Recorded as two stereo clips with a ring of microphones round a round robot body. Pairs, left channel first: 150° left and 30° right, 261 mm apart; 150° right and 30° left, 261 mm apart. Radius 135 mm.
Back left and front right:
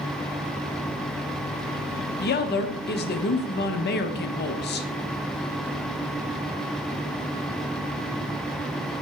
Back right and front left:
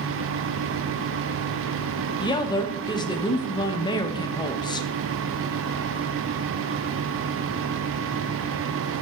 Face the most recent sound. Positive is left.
turn(degrees=145)